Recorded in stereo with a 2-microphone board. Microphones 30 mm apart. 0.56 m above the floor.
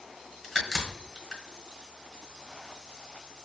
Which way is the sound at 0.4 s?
Centre (ahead or behind).